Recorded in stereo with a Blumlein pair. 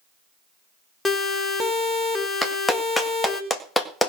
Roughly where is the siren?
Ahead.